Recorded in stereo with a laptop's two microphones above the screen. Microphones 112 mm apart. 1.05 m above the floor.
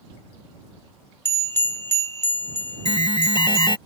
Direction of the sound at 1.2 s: 20° left (ahead or behind).